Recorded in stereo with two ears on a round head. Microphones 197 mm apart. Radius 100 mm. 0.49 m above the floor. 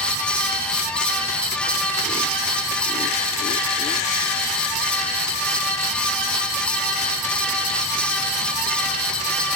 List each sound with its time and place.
Only background noise.